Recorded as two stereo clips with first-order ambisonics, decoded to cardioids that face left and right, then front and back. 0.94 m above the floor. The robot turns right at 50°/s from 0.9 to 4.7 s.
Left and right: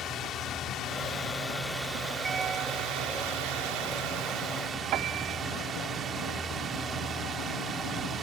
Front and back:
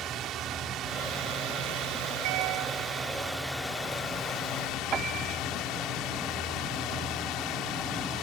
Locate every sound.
0.0 s a drone: 140° left; by 8.2 s 30° right
2.2 s a piano: 165° right; by 3.8 s 90° right
4.9 s a piano: 125° right